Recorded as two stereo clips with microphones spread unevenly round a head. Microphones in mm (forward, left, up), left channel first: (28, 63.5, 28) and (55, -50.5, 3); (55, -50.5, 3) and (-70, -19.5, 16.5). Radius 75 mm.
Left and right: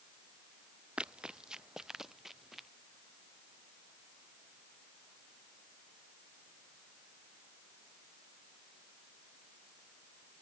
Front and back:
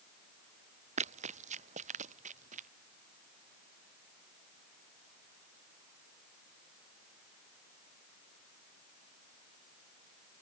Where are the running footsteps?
160° right; by 2.7 s 165° right.